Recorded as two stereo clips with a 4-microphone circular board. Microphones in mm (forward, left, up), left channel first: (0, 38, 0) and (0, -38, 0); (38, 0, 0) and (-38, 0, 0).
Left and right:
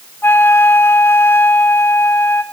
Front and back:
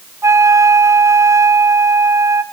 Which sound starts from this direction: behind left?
A flute, at 0.2 s.